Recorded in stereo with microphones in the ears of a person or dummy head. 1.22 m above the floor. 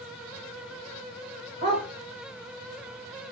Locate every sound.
1.6 s a dog barking: 30° right (ahead or behind), 1.4 m